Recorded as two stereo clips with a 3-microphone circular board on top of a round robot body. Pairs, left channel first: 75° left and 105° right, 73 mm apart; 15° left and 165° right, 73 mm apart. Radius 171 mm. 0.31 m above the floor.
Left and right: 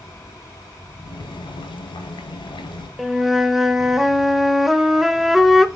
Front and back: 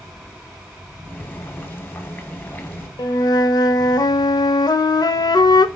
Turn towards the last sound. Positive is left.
turn(degrees=-20)